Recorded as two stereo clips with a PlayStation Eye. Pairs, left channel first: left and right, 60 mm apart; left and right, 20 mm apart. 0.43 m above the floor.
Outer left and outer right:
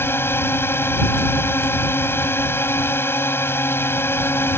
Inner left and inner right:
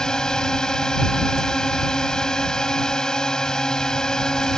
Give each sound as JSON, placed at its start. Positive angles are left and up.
{"t": 0.0, "sound": "a drone", "side_deg": 35}